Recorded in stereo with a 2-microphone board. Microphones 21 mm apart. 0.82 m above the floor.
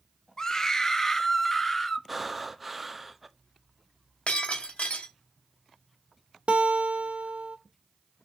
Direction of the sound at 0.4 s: 25° left (ahead or behind).